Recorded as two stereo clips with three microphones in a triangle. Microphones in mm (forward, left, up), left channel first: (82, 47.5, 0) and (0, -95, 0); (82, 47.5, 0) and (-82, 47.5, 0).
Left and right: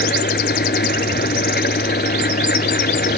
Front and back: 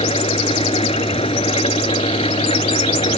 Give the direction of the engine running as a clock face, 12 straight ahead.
10 o'clock.